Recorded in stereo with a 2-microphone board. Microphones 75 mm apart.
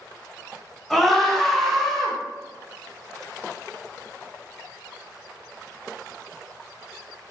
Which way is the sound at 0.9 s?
5° left (ahead or behind).